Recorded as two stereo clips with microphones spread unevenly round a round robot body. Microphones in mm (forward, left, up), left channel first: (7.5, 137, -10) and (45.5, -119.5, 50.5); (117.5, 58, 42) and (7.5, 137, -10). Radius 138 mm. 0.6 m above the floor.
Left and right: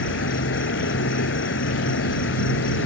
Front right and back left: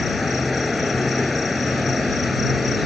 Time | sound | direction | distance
0.0 | an insect | 55° left | ?